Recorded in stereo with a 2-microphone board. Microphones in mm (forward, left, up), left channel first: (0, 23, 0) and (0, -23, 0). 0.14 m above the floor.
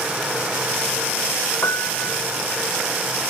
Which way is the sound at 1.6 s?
80° left.